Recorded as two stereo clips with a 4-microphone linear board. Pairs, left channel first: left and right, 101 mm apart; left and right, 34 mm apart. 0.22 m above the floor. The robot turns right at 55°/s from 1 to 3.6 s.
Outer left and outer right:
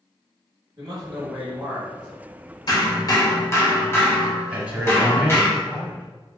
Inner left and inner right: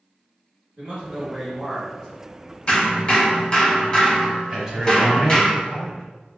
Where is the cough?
No cough in this recording.